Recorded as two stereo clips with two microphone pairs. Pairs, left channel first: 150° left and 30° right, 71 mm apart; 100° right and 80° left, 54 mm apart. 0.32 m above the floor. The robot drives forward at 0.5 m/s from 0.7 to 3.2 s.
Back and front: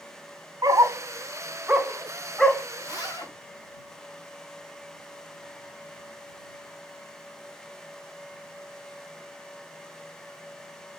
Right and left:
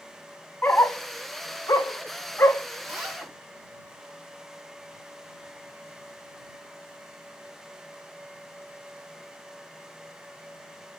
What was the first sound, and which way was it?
A dog barking, 50° right.